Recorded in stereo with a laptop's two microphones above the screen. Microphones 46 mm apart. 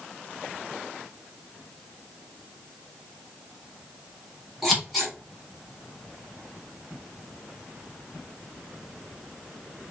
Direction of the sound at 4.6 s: Centre (ahead or behind).